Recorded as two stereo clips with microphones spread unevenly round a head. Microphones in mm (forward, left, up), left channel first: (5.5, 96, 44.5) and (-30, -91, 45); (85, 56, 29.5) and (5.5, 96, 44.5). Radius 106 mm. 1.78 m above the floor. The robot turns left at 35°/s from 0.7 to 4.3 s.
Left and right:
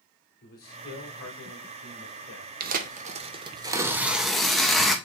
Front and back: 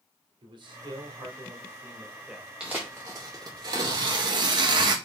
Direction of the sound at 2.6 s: 130° right.